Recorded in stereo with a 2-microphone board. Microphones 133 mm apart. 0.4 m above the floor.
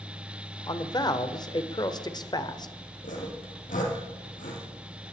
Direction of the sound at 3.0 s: 75° left (ahead or behind).